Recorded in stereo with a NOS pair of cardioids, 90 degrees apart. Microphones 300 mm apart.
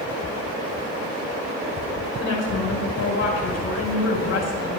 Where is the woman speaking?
55° left, 3.5 m.